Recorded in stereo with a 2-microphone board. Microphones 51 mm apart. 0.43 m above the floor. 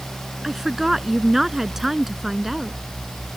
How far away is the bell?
I don't hear a bell.